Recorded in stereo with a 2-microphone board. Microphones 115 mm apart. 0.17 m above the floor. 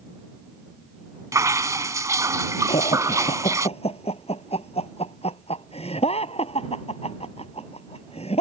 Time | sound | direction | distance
1.3 | dripping | 30° right (ahead or behind) | ?
2.7 | laughter | 60° left (ahead or behind) | ?